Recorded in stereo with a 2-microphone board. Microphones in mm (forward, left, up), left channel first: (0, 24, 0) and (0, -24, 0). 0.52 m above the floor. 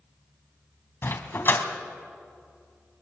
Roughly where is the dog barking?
Left.